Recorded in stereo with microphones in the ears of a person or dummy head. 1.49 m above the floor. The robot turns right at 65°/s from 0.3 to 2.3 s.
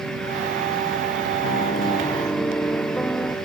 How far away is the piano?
About 1.1 m.